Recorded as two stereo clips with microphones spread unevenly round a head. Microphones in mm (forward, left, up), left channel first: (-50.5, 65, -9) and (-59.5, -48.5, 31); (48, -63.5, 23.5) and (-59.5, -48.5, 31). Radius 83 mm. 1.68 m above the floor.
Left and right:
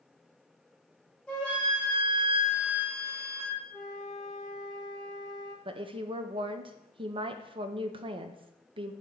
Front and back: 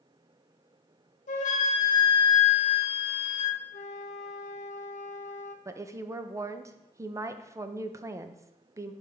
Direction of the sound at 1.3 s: 5° right.